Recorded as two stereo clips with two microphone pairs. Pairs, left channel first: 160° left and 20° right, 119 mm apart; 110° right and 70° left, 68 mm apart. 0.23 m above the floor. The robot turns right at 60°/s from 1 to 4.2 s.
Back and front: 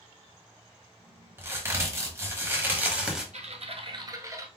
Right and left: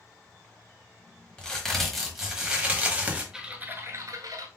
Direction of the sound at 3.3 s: 10° right.